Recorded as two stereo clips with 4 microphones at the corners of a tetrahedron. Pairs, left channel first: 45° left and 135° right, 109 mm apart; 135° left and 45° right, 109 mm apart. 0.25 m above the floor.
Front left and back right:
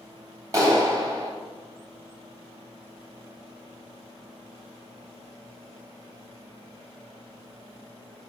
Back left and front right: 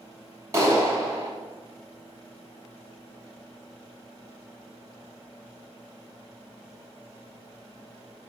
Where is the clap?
90° right, 1.5 m.